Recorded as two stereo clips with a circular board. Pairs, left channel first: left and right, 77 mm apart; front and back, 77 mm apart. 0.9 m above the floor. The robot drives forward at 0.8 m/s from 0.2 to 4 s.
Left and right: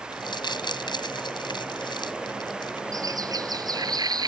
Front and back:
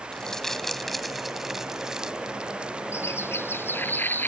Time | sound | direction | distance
0.1 | crumpling | 80° left | ?
2.9 | a bird | 55° right | ?